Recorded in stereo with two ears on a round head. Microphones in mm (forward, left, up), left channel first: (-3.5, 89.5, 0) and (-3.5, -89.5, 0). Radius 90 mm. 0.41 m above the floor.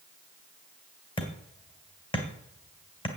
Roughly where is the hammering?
Left.